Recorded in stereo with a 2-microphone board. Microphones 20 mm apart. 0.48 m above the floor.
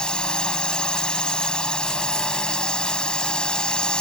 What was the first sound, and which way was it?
A drone, 55° left (ahead or behind).